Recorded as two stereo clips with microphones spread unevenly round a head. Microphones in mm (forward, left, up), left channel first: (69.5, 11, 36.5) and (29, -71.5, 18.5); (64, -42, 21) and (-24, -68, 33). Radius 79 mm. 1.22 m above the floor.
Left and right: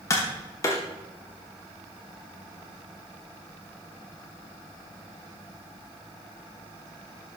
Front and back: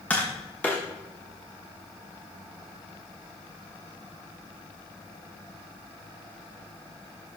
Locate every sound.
0.1 s tapping: 100° left, 0.9 m